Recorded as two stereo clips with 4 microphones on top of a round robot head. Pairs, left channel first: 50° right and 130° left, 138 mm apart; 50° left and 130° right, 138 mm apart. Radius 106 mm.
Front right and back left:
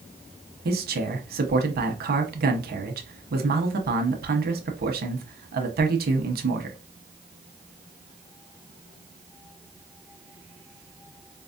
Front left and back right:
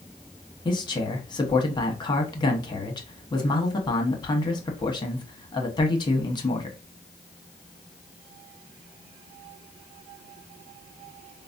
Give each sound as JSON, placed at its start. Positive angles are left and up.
{"t": 0.7, "sound": "a man speaking", "azimuth_deg": 115, "distance_m": 1.0}